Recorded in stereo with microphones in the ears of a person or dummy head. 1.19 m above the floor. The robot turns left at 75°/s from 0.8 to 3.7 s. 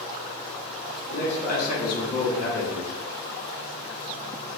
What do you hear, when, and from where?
1.1 s a man speaking: 85° left, 1.1 m; by 2.9 s 55° right, 1.1 m